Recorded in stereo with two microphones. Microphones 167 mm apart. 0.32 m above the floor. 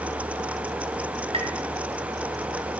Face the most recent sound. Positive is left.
turn(degrees=-35)  # may be behind; listen again after turning